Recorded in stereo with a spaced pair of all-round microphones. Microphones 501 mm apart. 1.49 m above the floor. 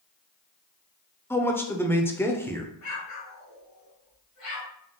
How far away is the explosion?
About 1.2 m.